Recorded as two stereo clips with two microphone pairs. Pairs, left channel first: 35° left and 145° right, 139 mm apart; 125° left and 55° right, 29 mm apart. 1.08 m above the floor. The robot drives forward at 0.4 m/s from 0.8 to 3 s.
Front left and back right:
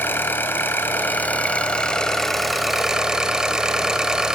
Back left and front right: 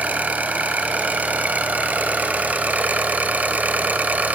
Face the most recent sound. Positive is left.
turn(degrees=-60)